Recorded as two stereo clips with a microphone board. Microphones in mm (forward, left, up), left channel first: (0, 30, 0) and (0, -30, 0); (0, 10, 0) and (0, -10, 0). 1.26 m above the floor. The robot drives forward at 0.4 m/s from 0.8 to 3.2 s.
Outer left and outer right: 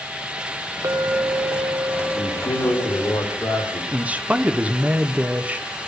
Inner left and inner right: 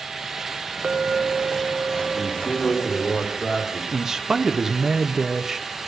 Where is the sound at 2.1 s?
80° left, 3 m; by 3.8 s 70° left (ahead or behind), 3.5 m.